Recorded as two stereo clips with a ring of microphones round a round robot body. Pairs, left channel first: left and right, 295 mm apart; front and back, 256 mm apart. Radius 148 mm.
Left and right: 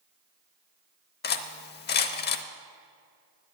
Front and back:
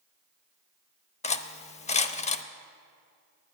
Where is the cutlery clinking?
50° left, 0.7 m.